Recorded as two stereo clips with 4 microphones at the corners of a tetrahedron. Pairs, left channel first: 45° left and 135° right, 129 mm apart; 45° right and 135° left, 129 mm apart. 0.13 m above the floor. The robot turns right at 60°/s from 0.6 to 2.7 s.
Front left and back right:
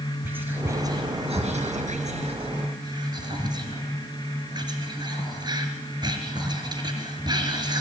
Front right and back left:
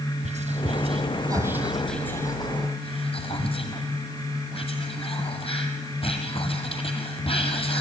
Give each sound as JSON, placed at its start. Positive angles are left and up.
{"t": 0.2, "sound": "whispering", "azimuth_deg": 150, "distance_m": 3.0}